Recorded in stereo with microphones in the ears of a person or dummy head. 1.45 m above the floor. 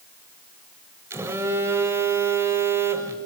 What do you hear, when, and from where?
1.1 s a phone buzzing: 10° right (ahead or behind), 1.5 m